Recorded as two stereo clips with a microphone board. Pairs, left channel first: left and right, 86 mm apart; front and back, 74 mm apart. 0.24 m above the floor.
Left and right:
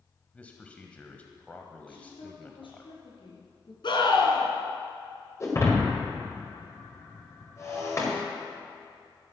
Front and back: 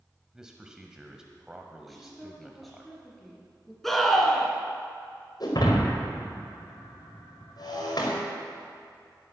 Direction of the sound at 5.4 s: 30° left.